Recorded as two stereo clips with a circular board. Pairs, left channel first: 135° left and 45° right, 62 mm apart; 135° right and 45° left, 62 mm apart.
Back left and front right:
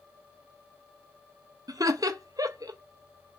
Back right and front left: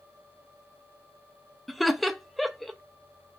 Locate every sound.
1.7 s laughter: 45° right, 0.6 m